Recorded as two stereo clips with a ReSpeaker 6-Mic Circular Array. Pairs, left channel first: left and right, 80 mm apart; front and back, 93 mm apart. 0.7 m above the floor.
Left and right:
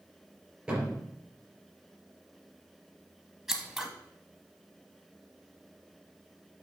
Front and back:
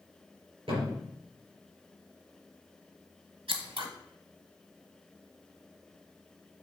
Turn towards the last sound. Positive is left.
turn(degrees=-175)